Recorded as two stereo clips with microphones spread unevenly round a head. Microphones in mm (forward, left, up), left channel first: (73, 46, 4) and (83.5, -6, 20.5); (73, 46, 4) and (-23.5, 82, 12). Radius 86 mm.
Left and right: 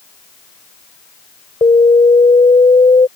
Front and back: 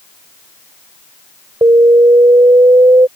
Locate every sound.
1.6 s an alarm: 105° left